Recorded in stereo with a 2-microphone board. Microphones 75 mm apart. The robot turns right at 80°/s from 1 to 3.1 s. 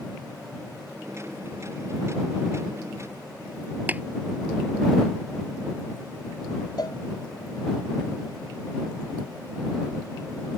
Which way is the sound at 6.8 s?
60° left (ahead or behind).